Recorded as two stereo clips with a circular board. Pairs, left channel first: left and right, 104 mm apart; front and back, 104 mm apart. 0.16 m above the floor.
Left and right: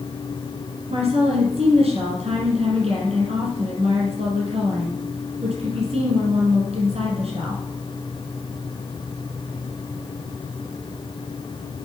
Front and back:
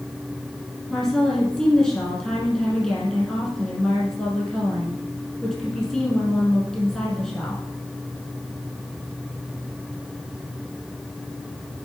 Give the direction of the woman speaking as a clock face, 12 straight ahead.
3 o'clock.